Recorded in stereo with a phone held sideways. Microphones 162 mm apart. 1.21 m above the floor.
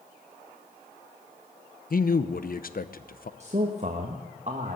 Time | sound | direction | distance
1.9 | a man speaking | 60° left (ahead or behind) | 0.7 m
3.4 | a man speaking | 45° right (ahead or behind) | 1.3 m